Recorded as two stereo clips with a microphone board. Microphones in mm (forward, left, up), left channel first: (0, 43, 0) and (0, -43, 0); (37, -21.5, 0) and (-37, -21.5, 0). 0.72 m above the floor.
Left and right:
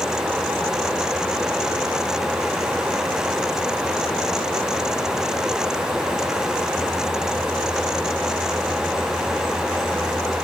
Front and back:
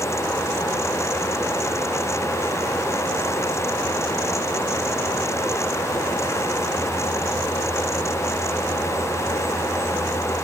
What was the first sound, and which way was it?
Only background noise.